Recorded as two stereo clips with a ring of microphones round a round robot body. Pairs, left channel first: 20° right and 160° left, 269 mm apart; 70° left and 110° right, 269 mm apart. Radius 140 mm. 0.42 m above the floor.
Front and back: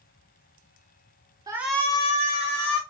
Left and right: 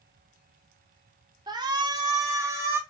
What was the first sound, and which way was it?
A shout, 155° right.